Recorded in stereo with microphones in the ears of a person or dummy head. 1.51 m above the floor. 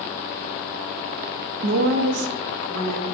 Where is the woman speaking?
55° right (ahead or behind), 0.6 m; by 3.0 s 70° right (ahead or behind), 1.1 m.